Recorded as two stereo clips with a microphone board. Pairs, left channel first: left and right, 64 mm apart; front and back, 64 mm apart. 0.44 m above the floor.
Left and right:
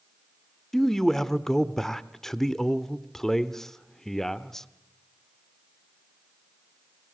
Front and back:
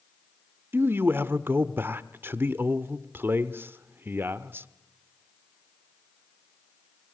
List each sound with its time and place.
0.7 s a man speaking: 170° left, 0.9 m